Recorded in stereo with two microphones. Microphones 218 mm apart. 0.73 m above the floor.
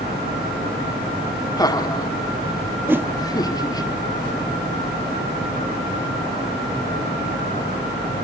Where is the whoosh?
10° right (ahead or behind), 0.6 m.